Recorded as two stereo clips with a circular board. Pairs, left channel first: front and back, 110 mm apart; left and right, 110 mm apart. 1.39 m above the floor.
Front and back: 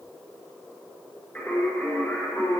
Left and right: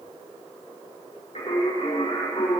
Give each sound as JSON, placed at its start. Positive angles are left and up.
{"t": 1.4, "sound": "singing", "azimuth_deg": 80, "distance_m": 4.5}